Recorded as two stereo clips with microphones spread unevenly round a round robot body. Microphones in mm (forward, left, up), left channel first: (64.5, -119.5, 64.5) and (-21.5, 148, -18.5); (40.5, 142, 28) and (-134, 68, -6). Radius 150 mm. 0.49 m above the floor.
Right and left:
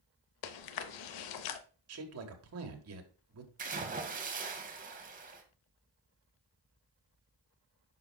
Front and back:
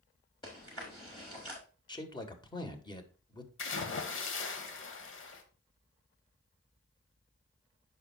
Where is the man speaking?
95° left, 1.6 m.